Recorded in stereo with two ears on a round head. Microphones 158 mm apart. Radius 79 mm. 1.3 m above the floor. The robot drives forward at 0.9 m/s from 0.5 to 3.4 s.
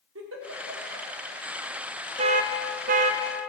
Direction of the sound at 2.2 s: 35° right (ahead or behind).